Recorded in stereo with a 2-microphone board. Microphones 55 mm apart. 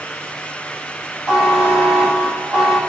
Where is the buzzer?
20° right (ahead or behind), 3 m.